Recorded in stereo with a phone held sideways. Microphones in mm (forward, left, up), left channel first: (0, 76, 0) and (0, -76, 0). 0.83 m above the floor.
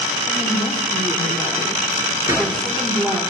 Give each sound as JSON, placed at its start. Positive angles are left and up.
{"t": 0.3, "sound": "a woman speaking", "side_deg": -5, "distance_m": 2.5}
{"t": 2.3, "sound": "a gunshot", "side_deg": -20, "distance_m": 2.5}